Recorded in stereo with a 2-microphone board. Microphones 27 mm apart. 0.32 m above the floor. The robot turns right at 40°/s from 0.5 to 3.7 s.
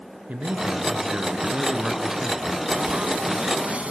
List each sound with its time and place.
0.3 s a man speaking: 75° right, 3.5 m; by 2.6 s 10° left, 3.5 m
2.7 s frying: 85° right, 0.5 m; by 3.9 s 45° right, 0.5 m